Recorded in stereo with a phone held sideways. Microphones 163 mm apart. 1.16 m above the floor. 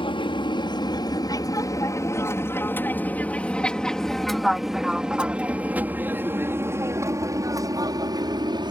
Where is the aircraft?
30° left (ahead or behind); by 8.7 s 25° right (ahead or behind).